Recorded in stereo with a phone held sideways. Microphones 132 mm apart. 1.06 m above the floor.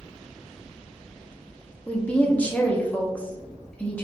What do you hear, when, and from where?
1.9 s a woman speaking: 10° left (ahead or behind), 0.8 m